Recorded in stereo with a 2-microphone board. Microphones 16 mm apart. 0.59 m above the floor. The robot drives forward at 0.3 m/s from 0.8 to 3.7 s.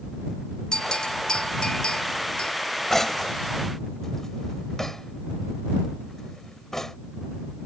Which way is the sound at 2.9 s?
25° left (ahead or behind).